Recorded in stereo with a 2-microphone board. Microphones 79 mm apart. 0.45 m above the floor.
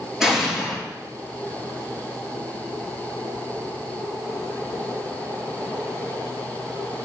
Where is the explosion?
5° right (ahead or behind), 7 m.